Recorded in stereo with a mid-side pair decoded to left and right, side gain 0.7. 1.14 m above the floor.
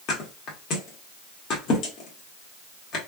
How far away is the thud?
About 1.5 m.